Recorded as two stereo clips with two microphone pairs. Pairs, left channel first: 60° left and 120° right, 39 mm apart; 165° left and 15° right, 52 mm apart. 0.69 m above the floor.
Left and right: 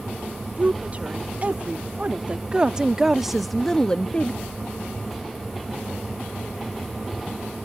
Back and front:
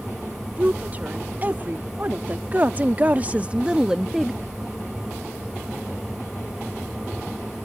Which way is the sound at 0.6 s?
70° right.